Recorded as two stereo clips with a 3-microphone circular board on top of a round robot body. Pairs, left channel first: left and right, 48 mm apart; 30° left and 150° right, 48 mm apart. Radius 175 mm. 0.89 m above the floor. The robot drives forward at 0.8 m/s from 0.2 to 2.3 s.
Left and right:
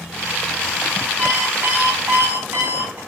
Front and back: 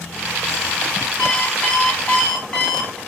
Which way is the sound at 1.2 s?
25° right.